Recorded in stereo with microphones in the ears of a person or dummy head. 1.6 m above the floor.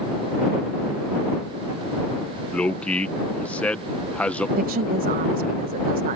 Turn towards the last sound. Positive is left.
turn(degrees=-35)  # may be behind; listen again after turning